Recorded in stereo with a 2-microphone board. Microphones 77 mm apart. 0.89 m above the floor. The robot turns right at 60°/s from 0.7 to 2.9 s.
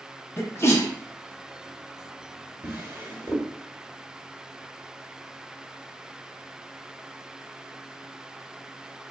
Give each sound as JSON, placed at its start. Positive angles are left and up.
{"t": 0.4, "sound": "a sneeze", "side_deg": 35, "distance_m": 0.6}
{"t": 2.6, "sound": "a drawer", "side_deg": -20, "distance_m": 1.0}